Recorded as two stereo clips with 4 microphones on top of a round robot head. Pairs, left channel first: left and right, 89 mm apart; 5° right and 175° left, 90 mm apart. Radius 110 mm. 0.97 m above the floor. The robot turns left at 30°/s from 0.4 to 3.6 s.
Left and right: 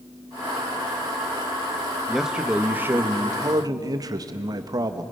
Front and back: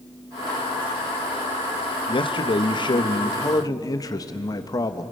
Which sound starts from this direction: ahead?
A man speaking, at 2.1 s.